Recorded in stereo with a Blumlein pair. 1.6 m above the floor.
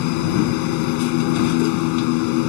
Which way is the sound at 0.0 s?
45° left.